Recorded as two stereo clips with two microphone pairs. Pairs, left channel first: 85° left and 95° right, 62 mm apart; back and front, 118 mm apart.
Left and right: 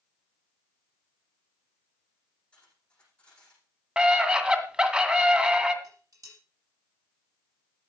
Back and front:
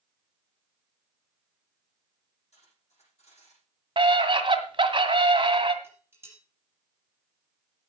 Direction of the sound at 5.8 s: 65° right.